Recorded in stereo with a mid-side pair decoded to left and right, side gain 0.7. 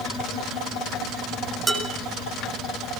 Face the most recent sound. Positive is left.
turn(degrees=-25)